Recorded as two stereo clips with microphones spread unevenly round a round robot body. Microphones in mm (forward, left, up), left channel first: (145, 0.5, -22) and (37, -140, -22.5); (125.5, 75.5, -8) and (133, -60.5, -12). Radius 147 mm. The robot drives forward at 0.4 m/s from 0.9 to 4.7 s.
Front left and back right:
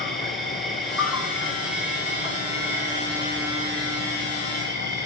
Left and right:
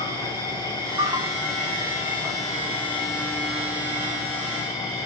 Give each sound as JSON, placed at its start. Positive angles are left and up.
{"t": 0.0, "sound": "an insect", "azimuth_deg": -35, "distance_m": 1.8}